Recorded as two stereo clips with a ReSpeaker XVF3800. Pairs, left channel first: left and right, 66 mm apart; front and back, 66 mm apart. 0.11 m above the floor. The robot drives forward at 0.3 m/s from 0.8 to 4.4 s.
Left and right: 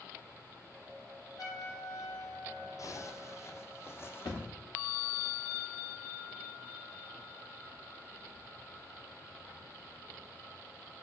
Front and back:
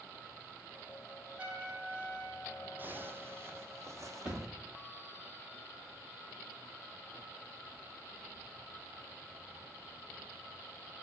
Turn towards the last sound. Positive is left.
turn(degrees=105)